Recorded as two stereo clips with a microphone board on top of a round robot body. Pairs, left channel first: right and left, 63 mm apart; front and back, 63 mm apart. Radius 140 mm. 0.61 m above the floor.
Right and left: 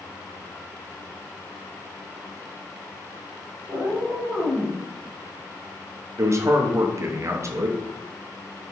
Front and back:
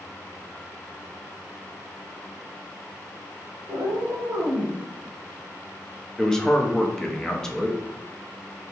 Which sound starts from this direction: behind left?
A cat meowing, at 3.7 s.